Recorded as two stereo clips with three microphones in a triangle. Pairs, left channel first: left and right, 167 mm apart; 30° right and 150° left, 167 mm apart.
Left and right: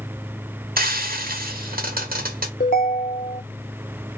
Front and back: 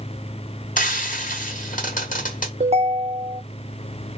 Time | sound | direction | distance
0.8 | frying | 65° right | 0.9 m
2.6 | a ringtone | 105° left | 0.6 m